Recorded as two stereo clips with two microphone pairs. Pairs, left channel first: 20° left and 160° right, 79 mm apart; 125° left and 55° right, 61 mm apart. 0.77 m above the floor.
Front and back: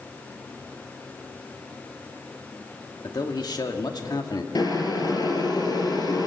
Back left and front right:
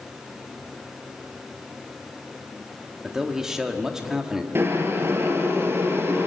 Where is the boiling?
5° right, 3 m.